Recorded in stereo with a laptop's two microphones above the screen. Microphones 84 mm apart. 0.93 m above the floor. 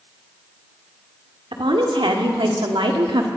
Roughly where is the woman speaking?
Right.